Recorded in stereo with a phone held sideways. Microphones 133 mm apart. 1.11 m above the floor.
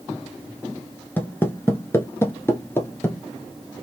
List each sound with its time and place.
1.2 s footsteps: 15° left (ahead or behind), 1.1 m